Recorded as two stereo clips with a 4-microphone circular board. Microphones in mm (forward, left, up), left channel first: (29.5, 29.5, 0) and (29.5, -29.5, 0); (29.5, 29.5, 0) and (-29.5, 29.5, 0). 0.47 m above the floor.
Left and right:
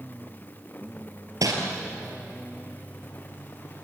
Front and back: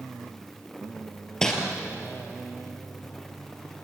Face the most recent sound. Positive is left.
turn(degrees=-80)